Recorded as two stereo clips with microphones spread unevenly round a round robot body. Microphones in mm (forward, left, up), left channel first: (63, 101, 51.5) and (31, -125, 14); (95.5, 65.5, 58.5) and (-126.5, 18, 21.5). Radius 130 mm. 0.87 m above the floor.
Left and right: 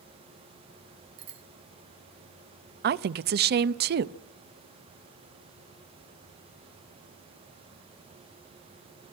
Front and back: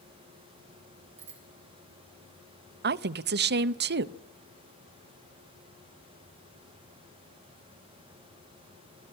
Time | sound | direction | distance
1.2 | a bicycle bell | 100° right | 3 m
2.8 | a woman speaking | 135° right | 0.6 m